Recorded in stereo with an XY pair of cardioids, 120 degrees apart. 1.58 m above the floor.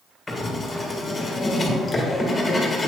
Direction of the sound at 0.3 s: 25° left.